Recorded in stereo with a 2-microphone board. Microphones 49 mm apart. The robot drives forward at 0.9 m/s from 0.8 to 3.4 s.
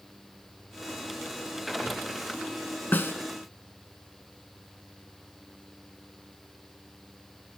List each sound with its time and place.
2.9 s a snare drum: 40° left (ahead or behind), 0.6 m; by 3.1 s 50° left (ahead or behind), 0.5 m